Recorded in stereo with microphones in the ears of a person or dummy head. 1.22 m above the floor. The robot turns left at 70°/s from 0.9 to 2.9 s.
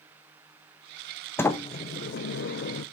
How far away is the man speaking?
I don't hear a man speaking.